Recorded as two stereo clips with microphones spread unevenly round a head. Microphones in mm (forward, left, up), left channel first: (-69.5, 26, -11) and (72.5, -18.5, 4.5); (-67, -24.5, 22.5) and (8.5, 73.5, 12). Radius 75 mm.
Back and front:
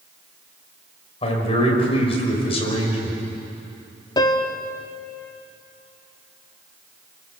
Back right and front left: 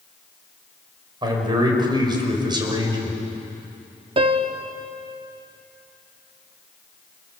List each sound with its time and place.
1.2 s a man speaking: 105° left, 5.5 m
4.2 s a piano: 100° left, 1.4 m